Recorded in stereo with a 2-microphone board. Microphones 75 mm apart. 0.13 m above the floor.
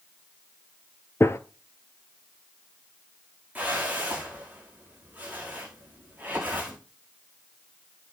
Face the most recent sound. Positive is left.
turn(degrees=-20)  # may be behind; listen again after turning